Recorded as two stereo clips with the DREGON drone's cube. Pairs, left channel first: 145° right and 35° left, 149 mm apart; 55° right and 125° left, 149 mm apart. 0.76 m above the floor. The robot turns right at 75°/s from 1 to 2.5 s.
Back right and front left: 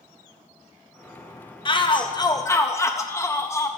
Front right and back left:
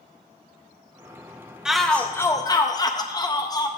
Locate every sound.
1.6 s a shout: 155° right, 0.5 m; by 3.7 s 90° right, 0.5 m